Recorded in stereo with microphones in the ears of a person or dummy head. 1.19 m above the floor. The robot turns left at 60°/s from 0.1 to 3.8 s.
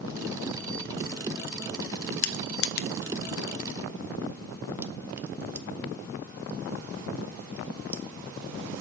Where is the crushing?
75° left (ahead or behind), 0.5 m; by 8.8 s 15° right (ahead or behind), 0.5 m.